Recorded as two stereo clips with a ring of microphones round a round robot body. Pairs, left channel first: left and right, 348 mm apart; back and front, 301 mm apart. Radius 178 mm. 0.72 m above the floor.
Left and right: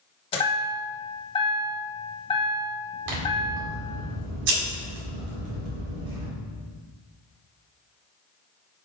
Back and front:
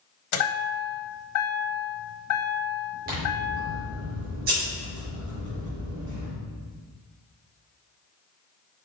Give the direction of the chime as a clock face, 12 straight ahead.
7 o'clock.